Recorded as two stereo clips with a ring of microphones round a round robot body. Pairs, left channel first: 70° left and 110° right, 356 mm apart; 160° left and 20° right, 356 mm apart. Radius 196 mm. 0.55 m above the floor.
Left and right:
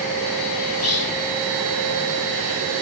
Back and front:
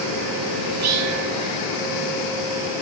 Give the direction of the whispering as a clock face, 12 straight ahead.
11 o'clock.